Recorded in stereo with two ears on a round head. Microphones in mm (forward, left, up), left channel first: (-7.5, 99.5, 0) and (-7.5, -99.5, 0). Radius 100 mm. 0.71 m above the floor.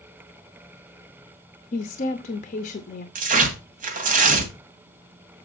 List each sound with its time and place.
1.7 s a woman speaking: 35° left (ahead or behind), 0.9 m
3.1 s tearing paper: 40° right (ahead or behind), 1.9 m